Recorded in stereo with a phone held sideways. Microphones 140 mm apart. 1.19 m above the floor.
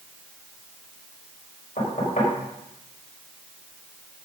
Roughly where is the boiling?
I don't hear boiling.